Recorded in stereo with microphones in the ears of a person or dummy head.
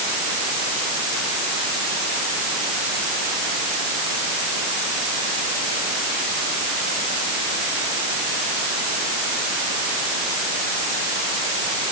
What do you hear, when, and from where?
Only background noise.